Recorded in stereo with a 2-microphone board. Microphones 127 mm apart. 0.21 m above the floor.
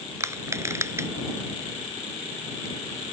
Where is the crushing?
25° right (ahead or behind).